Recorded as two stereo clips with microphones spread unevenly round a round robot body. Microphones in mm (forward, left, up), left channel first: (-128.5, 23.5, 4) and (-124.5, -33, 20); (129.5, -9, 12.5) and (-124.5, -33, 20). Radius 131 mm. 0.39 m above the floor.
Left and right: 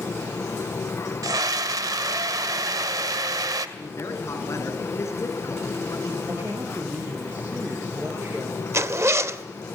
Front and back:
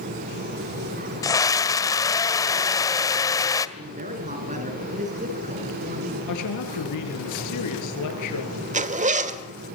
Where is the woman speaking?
5° right, 7 m.